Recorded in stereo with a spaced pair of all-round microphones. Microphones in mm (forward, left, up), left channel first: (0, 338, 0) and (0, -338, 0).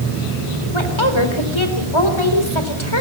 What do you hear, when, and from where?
0.7 s a woman speaking: 45° left (ahead or behind), 4 m